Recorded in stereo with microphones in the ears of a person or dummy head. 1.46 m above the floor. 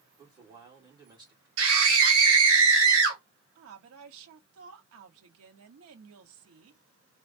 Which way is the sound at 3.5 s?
75° right (ahead or behind).